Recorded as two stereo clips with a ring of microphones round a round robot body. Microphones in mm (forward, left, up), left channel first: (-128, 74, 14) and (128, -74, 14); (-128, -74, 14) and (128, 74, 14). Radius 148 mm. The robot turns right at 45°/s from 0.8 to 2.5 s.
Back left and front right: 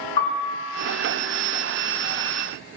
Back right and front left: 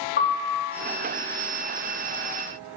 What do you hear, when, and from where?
0.2 s a piano: 150° left, 3.5 m